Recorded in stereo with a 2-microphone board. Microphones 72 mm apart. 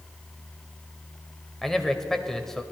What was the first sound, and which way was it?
A man speaking, 5° left (ahead or behind).